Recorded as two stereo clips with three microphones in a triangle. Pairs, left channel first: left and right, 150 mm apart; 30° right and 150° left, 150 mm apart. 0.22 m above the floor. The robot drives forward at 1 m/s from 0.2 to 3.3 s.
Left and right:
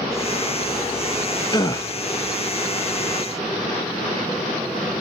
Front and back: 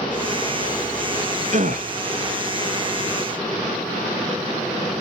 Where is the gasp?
140° left, 0.8 m; by 1.9 s 155° left, 1.1 m.